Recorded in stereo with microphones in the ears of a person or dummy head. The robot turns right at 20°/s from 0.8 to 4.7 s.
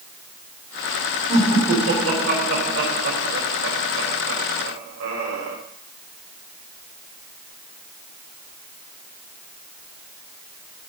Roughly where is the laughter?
Right.